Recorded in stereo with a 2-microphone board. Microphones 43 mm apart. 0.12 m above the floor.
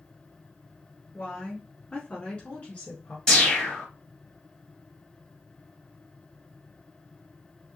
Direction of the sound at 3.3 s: 10° left (ahead or behind).